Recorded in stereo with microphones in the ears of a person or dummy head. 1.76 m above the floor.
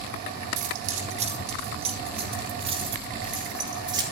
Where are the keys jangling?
45° right (ahead or behind), 1.6 m; by 4.0 s 30° right (ahead or behind), 3.5 m.